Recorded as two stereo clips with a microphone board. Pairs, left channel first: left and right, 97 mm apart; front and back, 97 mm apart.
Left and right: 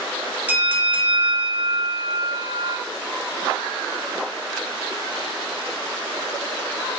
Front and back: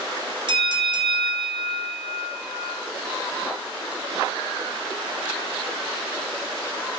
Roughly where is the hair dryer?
No hair dryer in this recording.